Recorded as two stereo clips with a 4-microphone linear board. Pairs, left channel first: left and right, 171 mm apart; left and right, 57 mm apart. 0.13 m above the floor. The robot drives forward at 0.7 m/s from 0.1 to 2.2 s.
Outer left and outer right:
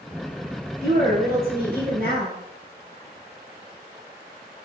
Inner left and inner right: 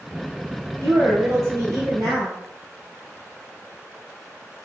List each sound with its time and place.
0.8 s a woman speaking: 65° right (ahead or behind), 2.5 m